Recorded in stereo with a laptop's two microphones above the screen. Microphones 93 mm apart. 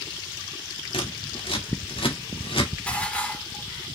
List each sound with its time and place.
0.9 s scissors: 75° left (ahead or behind), 2 m
2.9 s dishes clattering: 10° left (ahead or behind), 2 m